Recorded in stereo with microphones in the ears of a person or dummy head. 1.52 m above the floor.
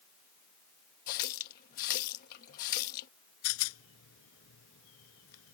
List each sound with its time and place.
1.1 s a running tap: 55° left (ahead or behind)
3.4 s a rattle: 80° left